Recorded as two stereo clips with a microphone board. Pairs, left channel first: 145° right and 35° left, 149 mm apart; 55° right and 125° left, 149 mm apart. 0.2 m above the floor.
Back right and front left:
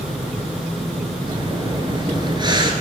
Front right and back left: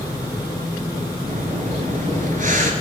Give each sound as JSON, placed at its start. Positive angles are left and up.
{"t": 1.3, "sound": "breathing", "azimuth_deg": 95, "distance_m": 1.5}